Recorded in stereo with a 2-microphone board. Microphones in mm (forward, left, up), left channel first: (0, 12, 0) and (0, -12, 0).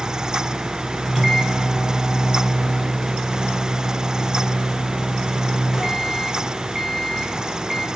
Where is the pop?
No pop in this recording.